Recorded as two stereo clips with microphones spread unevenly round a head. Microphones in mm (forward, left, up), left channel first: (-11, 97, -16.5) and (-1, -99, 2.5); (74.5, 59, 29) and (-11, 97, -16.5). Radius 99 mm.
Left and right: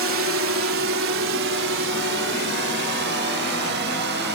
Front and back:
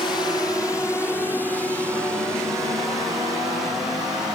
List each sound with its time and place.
0.0 s a drone: 95° right; by 4.4 s 125° right